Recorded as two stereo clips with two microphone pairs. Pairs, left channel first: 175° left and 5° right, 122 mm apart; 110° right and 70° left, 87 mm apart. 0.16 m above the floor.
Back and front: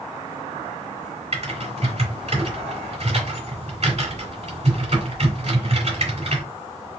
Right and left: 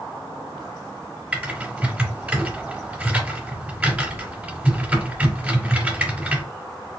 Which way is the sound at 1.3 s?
Straight ahead.